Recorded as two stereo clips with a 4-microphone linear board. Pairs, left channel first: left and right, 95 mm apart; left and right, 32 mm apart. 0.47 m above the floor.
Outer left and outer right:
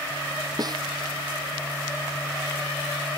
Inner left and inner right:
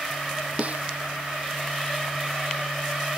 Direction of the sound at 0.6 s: 45° right (ahead or behind).